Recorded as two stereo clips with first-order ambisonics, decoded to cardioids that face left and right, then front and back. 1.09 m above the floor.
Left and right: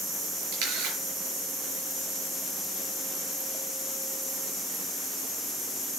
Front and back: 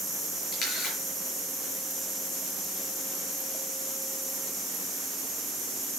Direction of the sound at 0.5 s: 65° right.